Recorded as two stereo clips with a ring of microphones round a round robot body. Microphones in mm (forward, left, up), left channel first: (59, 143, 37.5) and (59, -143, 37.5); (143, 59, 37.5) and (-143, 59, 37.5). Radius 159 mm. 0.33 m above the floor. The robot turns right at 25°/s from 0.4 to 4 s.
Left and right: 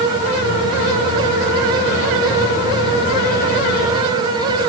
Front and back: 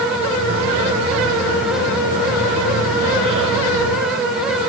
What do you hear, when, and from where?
Only background noise.